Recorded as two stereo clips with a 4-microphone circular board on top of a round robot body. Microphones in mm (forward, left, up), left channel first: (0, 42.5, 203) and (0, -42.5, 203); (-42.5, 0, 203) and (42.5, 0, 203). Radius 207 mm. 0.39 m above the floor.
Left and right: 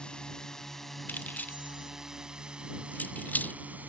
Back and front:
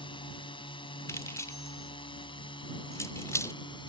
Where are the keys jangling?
150° left.